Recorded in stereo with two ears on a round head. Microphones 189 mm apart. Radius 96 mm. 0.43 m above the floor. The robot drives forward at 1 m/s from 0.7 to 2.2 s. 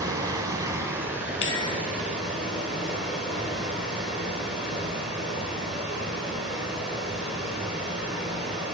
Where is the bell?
70° left (ahead or behind), 1.4 m; by 1.7 s 60° left (ahead or behind), 1.6 m.